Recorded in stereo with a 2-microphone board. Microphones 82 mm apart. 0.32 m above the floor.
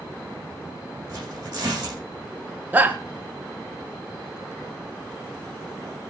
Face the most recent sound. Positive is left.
turn(degrees=-20)  # may be behind; listen again after turning